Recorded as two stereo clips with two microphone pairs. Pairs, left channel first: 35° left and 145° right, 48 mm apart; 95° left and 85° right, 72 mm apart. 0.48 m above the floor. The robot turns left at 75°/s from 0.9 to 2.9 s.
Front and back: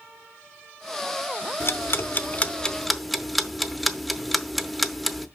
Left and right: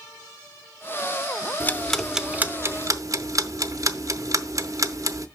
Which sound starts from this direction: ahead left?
Ticking, at 1.6 s.